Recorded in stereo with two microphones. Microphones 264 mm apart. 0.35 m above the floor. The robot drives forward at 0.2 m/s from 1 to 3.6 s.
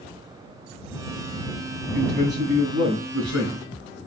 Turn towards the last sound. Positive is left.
turn(degrees=-75)  # may be behind; listen again after turning